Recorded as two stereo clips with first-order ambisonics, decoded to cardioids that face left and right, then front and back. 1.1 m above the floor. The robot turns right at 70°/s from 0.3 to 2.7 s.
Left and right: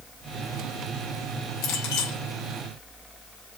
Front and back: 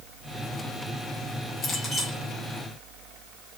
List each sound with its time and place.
1.6 s a clink: 60° left, 4 m; by 2.2 s 100° left, 4 m